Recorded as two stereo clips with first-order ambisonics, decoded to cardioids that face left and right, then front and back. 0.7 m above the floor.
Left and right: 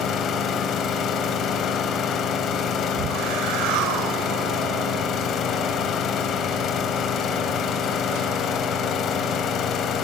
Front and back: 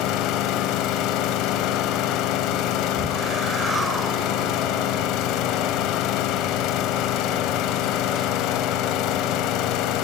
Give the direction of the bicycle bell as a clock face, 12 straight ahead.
No bicycle bell in this recording.